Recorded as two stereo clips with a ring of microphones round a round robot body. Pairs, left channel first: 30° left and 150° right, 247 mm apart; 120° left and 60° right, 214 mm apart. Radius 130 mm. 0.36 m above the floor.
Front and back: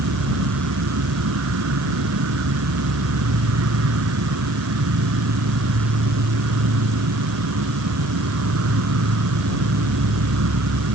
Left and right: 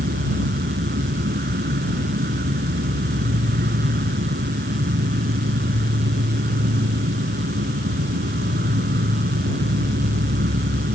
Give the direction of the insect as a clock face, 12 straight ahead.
4 o'clock.